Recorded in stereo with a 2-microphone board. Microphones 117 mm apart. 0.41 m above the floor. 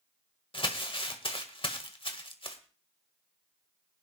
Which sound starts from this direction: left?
Crumpling, at 0.5 s.